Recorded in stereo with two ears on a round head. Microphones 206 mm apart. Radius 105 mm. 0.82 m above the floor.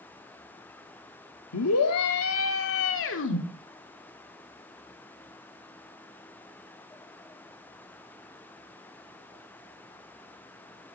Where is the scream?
70° left (ahead or behind), 1.6 m; by 3.4 s 55° left (ahead or behind), 2 m.